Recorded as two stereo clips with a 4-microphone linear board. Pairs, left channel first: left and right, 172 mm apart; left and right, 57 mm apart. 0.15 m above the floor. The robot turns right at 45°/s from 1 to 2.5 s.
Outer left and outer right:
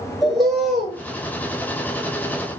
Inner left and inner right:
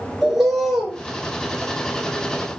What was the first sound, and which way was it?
A bird, centre (ahead or behind).